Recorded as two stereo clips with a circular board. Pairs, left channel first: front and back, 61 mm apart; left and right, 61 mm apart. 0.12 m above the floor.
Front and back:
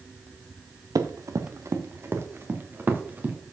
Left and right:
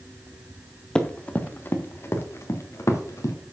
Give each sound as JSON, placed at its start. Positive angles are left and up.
{"t": 0.9, "sound": "running footsteps", "azimuth_deg": 165, "distance_m": 1.2}